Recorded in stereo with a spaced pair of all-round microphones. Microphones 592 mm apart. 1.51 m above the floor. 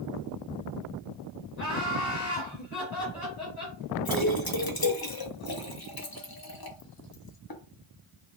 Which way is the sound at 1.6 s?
80° left.